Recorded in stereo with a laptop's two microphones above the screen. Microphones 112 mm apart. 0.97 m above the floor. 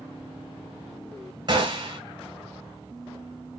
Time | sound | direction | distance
1.5 | a gunshot | 40° right (ahead or behind) | 1.0 m